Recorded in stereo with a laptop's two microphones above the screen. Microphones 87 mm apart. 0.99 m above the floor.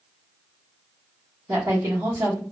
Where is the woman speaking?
40° right (ahead or behind), 0.9 m.